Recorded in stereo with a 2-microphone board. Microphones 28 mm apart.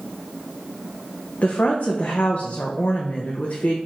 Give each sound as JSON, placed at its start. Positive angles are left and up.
{"t": 1.4, "sound": "a woman speaking", "side_deg": 70, "distance_m": 0.5}